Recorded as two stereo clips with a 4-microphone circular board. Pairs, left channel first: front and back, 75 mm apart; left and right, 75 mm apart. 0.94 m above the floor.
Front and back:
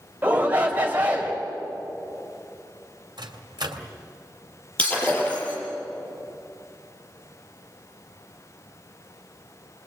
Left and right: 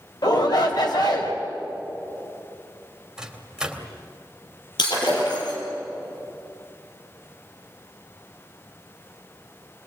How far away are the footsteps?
I don't hear footsteps.